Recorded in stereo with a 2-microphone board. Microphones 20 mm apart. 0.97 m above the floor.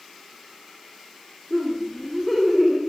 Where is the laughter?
5° right (ahead or behind), 2.5 m; by 2.8 s 15° right (ahead or behind), 1.6 m.